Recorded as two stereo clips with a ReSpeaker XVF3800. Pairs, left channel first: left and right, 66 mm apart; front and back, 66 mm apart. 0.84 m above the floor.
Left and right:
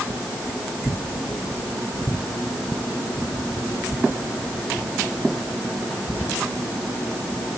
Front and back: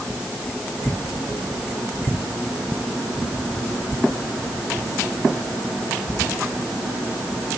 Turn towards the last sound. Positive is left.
No sound to turn to.